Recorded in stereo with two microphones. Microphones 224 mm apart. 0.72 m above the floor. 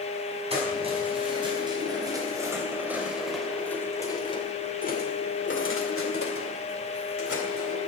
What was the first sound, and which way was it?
Keys jangling, 25° right (ahead or behind).